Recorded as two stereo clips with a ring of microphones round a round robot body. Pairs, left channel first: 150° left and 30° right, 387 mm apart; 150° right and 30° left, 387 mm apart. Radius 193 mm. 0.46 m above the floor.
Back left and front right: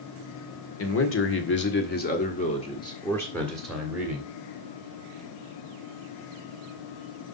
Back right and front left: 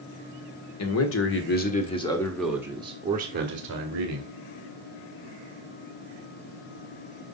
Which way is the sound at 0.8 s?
175° right.